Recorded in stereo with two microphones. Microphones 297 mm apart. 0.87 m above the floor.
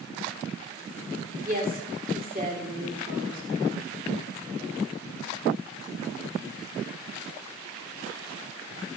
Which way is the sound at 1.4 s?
30° right (ahead or behind).